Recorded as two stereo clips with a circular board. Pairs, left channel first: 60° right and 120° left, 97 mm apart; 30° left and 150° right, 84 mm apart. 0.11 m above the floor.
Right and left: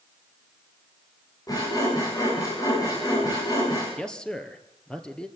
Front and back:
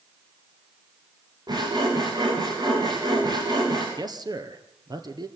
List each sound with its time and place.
1.5 s sawing: 110° right, 9 m
4.0 s a man speaking: 140° right, 2.5 m